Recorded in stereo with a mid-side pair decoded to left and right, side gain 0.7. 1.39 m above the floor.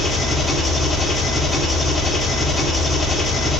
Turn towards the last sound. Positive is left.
turn(degrees=0)